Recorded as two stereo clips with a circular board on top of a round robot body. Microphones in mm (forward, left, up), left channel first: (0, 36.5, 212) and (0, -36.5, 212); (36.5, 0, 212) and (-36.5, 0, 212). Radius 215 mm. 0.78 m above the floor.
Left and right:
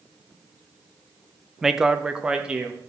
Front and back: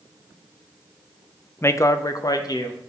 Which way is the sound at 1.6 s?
10° right.